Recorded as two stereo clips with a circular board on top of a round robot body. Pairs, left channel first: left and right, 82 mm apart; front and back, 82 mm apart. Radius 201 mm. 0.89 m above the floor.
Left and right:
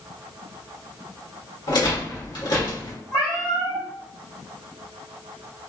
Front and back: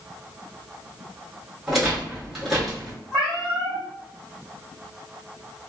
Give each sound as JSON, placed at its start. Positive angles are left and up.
{"t": 1.7, "sound": "a rattle", "azimuth_deg": 90, "distance_m": 1.4}
{"t": 3.1, "sound": "a cat meowing", "azimuth_deg": 115, "distance_m": 0.9}